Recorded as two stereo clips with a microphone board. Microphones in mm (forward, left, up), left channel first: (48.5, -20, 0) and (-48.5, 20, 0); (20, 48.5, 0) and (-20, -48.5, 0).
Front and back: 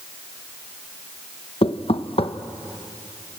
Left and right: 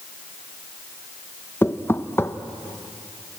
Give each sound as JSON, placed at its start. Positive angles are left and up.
{"t": 1.6, "sound": "knocking", "azimuth_deg": 0, "distance_m": 0.8}